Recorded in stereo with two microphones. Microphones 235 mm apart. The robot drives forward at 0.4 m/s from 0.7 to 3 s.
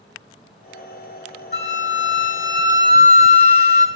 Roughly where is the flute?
Left.